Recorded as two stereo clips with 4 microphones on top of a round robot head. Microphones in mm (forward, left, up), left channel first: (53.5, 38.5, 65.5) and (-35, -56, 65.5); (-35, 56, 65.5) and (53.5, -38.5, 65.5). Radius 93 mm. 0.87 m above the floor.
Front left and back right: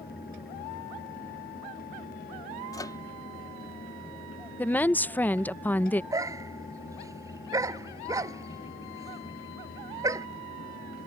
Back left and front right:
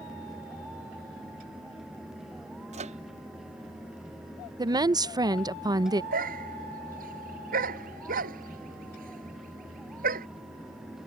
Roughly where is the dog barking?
Ahead right.